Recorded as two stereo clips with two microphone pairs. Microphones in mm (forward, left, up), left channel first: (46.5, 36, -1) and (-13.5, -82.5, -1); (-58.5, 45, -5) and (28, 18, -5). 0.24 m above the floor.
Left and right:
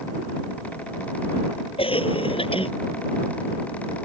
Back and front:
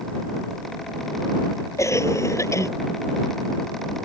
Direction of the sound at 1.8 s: 110° left.